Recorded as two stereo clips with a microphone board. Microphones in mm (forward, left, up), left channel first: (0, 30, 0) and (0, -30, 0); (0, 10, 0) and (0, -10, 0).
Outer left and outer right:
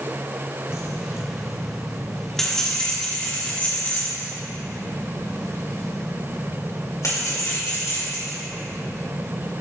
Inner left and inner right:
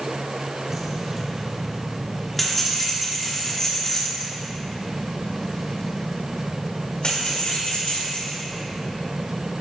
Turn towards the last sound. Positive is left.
turn(degrees=75)  # may be behind; listen again after turning